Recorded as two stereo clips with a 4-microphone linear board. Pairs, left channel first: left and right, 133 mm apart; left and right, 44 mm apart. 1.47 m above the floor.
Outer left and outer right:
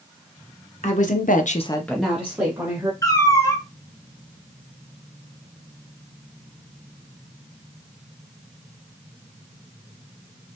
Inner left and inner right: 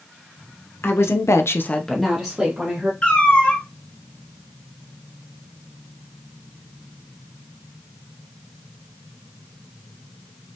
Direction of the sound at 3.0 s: 25° left (ahead or behind).